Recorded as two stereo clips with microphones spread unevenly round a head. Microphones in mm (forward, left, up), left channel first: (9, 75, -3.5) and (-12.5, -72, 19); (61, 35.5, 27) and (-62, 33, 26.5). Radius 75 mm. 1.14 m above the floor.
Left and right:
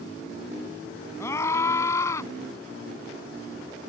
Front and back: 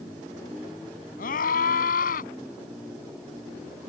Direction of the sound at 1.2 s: 5° left.